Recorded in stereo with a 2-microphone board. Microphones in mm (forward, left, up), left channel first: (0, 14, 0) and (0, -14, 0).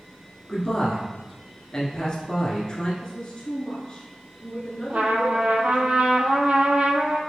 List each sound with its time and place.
0.5 s a man speaking: 25° left (ahead or behind), 1.2 m
3.0 s a woman speaking: 25° left (ahead or behind), 1.3 m
4.9 s a trumpet: 55° right (ahead or behind), 0.6 m